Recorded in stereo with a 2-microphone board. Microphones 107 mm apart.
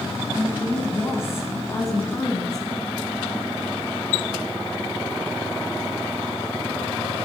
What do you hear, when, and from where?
0.3 s a woman speaking: 20° left (ahead or behind), 3.5 m; by 2.7 s 35° left (ahead or behind), 2.5 m